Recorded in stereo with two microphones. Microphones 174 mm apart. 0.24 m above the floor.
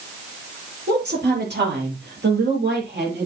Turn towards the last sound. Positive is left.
turn(degrees=-75)  # may be behind; listen again after turning